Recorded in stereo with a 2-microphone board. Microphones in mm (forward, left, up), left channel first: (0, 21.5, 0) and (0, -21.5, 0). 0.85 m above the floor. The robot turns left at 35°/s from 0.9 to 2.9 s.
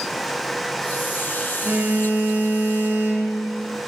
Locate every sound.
1.6 s a phone buzzing: 45° right, 4 m; by 3.3 s 90° right, 4 m